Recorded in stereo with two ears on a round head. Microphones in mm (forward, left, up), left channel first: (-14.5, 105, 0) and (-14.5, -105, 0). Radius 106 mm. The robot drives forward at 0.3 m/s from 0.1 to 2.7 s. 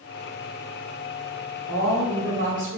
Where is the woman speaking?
65° right (ahead or behind), 1.5 m; by 2.8 s 55° right (ahead or behind), 1.6 m.